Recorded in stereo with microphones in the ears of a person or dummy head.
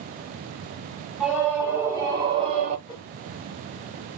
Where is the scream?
5° right (ahead or behind), 1.7 m; by 2.8 s 45° right (ahead or behind), 0.9 m.